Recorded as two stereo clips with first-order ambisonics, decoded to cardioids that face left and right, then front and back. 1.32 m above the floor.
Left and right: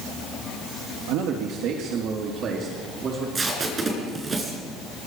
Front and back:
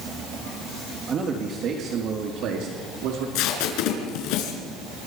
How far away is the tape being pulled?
About 5 m.